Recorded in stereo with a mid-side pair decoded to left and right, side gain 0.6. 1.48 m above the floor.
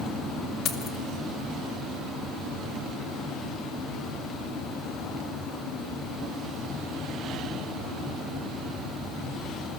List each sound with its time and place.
0.7 s keys jangling: 55° left, 1.9 m